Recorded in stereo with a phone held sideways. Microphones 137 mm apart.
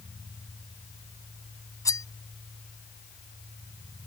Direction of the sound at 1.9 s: 25° left (ahead or behind).